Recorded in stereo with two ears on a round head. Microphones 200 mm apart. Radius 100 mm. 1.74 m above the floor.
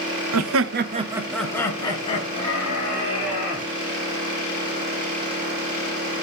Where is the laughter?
80° right, 1.0 m; by 3.6 s 35° left (ahead or behind), 3.5 m.